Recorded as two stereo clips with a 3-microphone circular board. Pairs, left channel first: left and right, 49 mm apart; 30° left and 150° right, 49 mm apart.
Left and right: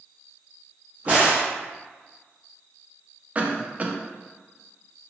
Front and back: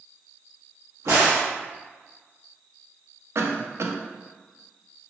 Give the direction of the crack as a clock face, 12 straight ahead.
5 o'clock.